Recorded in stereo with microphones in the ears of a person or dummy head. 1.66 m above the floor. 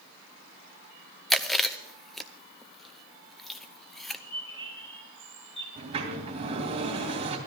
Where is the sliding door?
35° right (ahead or behind), 2.5 m.